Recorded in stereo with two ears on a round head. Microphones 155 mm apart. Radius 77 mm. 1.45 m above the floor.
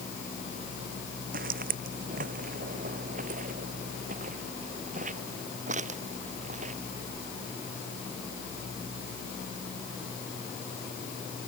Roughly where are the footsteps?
Right.